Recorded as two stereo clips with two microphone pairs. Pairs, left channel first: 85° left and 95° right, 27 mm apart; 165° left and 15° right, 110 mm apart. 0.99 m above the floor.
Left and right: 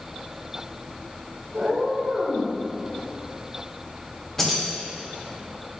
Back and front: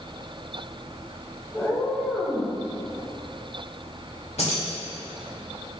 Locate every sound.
1.5 s a cat meowing: 120° right, 1.5 m
4.4 s keys jangling: 160° left, 2.5 m